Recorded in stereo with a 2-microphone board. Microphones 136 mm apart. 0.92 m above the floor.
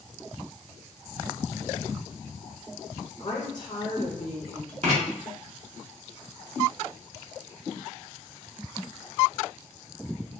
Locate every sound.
3.2 s a woman speaking: 35° left (ahead or behind), 1.0 m
4.8 s writing: 55° right (ahead or behind), 2.5 m